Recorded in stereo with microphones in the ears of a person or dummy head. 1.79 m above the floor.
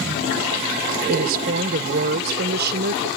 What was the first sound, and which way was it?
A woman speaking, 50° right (ahead or behind).